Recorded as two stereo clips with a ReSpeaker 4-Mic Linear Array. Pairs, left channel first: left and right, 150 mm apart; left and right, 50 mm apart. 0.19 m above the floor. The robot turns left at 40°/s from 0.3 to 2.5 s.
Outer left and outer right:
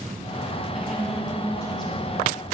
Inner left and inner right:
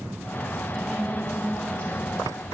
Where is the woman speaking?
175° right, 2.5 m; by 2.4 s 120° left, 2.5 m.